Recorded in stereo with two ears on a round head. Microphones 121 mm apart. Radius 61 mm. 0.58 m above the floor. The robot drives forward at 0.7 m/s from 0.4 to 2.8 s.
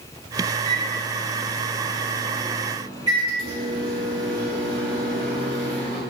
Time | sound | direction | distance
0.7 | a microwave | 55° right (ahead or behind) | 1.4 m